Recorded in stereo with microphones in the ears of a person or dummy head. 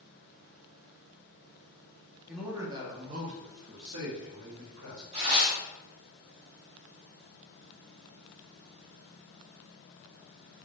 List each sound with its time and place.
2.3 s a man speaking: centre (ahead or behind), 0.8 m; by 5.0 s 50° right (ahead or behind), 1.5 m
5.1 s tearing paper: 25° right (ahead or behind), 0.9 m